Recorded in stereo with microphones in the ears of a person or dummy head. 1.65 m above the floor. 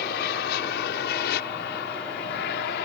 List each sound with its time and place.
0.0 s an aircraft: 60° left (ahead or behind); by 2.9 s 65° left (ahead or behind)